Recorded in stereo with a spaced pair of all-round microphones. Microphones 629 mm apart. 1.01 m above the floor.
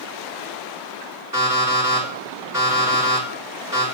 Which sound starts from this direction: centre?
An alarm clock, at 1.3 s.